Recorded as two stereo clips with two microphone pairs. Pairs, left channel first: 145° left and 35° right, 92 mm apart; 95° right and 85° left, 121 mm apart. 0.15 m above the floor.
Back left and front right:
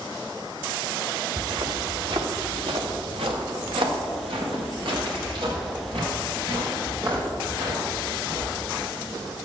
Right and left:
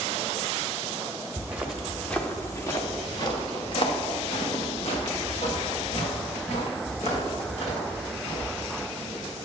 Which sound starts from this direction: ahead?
Footsteps, at 1.4 s.